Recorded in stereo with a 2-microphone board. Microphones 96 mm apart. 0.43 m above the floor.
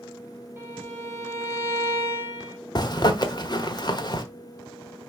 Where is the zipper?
45° left (ahead or behind), 1.1 m.